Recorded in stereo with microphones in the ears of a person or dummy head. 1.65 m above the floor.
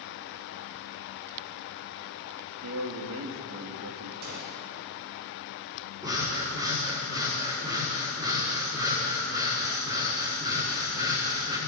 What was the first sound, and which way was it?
A man speaking, 75° right (ahead or behind).